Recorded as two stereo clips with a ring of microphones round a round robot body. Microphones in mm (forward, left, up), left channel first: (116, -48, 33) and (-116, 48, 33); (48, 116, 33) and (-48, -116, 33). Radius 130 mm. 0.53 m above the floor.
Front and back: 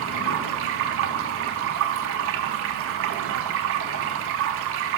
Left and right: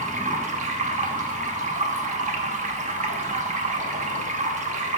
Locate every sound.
0.0 s running water: 170° right, 0.8 m